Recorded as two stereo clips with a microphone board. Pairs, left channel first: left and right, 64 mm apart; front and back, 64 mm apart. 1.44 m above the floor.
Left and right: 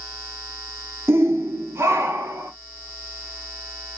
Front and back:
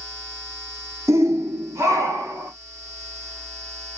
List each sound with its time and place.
1.1 s a shout: 140° right, 1.1 m